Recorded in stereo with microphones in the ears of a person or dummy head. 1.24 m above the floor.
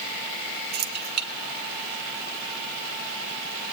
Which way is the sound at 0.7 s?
45° right (ahead or behind).